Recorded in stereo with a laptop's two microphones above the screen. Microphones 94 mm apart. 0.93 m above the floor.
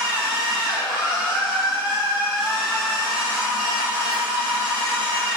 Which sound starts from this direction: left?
A machine running, at 0.0 s.